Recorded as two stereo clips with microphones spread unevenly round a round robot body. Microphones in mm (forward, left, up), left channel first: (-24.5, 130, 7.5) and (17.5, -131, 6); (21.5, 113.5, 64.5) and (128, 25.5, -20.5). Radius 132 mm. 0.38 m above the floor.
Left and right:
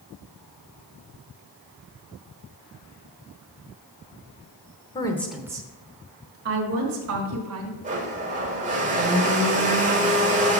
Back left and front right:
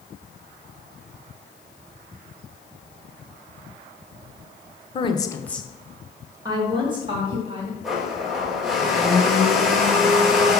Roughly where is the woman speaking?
Ahead left.